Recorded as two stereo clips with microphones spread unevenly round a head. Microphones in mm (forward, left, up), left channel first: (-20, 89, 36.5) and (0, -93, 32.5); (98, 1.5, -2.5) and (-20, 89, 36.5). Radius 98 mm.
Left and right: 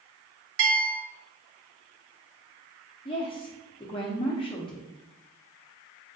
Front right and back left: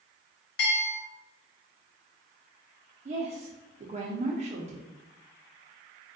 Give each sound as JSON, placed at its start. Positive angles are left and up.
{"t": 0.6, "sound": "a bell", "azimuth_deg": -65, "distance_m": 0.5}
{"t": 3.0, "sound": "a woman speaking", "azimuth_deg": 125, "distance_m": 0.6}